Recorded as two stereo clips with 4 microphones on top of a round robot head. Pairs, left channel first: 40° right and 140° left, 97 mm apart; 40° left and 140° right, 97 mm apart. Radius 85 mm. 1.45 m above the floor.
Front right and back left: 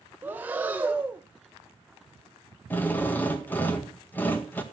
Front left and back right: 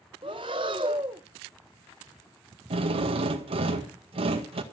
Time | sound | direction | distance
0.2 | breathing | 155° right | 0.6 m
2.7 | a drill | 110° right | 1.9 m